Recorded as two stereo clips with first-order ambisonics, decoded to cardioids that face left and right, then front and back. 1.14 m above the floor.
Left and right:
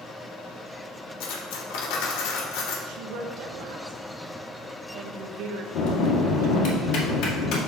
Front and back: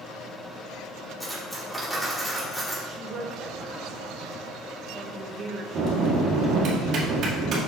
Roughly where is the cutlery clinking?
Left.